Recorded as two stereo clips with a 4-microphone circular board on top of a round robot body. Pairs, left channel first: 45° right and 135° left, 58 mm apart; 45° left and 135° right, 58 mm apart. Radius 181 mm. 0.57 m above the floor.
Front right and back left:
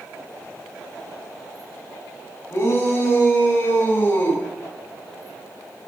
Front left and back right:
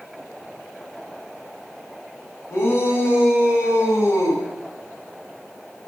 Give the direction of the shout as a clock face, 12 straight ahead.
12 o'clock.